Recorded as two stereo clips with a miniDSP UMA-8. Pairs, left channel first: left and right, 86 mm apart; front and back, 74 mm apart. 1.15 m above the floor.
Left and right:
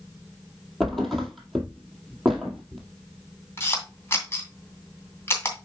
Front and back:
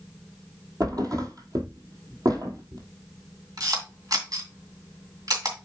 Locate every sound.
0.8 s a thud: 175° left, 1.9 m
3.6 s a camera shutter: 150° left, 2.5 m